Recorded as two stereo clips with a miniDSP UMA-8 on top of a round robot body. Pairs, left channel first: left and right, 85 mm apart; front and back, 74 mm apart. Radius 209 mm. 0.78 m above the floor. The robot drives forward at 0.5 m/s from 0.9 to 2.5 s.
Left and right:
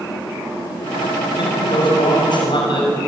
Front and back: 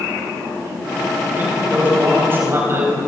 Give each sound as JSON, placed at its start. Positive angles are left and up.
{"t": 1.4, "sound": "a man speaking", "azimuth_deg": 115, "distance_m": 6.0}